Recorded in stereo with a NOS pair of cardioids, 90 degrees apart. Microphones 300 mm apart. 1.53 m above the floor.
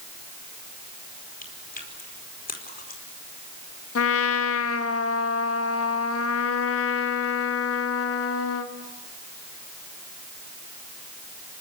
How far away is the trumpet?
About 1.8 m.